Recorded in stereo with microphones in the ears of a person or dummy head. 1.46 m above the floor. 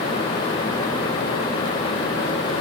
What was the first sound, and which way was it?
Only background noise.